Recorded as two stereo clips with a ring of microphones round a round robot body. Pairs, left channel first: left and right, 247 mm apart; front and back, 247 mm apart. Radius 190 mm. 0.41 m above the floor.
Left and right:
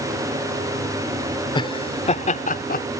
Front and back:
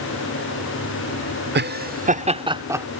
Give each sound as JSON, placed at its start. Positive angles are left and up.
{"t": 1.6, "sound": "laughter", "azimuth_deg": 155}